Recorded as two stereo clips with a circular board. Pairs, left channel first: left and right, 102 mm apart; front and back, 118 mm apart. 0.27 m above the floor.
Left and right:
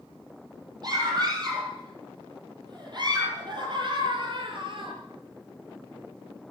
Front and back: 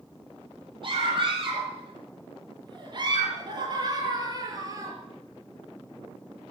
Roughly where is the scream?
Behind right.